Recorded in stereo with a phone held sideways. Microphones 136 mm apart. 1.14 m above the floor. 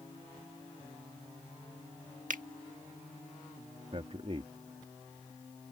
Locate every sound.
2.3 s a finger snap: 75° right (ahead or behind)
3.9 s a man speaking: 45° right (ahead or behind)